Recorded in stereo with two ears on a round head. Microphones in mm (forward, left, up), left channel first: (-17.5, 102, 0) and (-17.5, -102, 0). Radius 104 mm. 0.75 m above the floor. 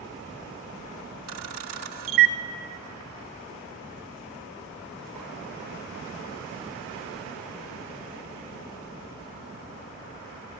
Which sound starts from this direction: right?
A camera shutter, at 1.3 s.